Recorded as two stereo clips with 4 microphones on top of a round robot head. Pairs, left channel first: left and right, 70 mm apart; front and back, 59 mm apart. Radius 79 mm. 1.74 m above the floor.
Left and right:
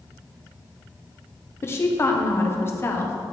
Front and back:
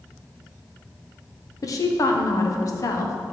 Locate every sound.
1.6 s a woman speaking: 35° left, 1.6 m